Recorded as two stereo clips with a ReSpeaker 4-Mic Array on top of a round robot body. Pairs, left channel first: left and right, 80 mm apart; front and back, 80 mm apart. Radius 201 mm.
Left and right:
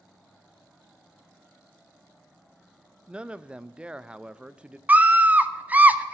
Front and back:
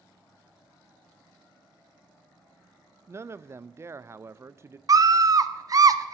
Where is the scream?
155° right, 1.3 m.